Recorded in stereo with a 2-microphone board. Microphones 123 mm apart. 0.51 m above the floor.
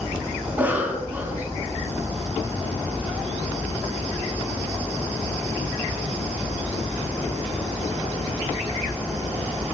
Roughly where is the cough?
Centre.